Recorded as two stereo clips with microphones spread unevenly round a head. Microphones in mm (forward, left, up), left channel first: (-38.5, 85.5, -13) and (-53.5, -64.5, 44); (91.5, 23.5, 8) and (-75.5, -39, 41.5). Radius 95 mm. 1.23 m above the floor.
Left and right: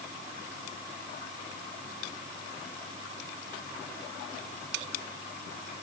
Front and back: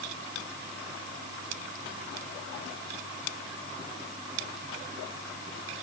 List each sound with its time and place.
Only background noise.